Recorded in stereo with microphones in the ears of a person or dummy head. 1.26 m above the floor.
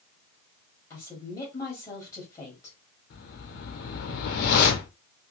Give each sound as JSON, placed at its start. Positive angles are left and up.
{"t": 0.9, "sound": "a woman speaking", "side_deg": 20, "distance_m": 1.6}
{"t": 3.1, "sound": "a whoosh", "side_deg": 55, "distance_m": 0.9}